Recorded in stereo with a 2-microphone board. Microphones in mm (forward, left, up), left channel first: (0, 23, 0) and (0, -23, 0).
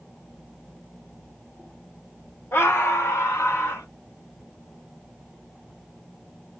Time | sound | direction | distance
2.5 | a scream | 65° left (ahead or behind) | 1.4 m